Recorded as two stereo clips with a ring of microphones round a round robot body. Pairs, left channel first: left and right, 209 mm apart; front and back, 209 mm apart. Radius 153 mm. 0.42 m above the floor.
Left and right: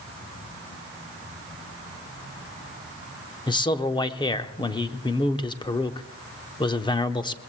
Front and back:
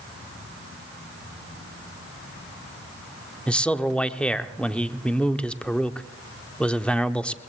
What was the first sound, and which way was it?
A man speaking, 75° left.